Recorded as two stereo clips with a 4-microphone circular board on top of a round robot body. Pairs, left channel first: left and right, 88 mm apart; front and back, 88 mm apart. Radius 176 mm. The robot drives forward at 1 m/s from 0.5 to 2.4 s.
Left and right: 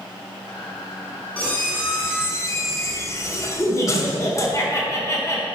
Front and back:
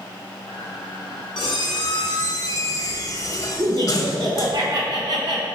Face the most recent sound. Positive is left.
turn(degrees=145)